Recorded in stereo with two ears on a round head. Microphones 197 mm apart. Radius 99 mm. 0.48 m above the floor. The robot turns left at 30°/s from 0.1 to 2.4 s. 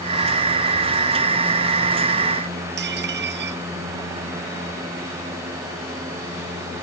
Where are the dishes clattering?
55° right (ahead or behind).